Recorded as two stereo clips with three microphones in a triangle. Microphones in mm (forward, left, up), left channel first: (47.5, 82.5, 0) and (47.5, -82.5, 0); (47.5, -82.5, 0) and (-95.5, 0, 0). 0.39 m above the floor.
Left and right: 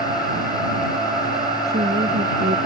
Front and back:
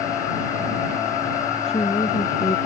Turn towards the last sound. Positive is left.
turn(degrees=-85)